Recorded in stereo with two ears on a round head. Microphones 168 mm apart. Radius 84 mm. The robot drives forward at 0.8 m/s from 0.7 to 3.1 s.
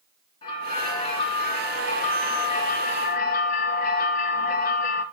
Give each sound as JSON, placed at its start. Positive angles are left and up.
{"t": 0.4, "sound": "a bell", "side_deg": 25, "distance_m": 3.0}